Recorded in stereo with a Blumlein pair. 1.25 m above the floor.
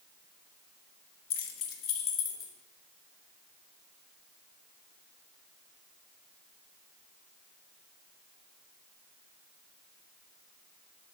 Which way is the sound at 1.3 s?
40° left.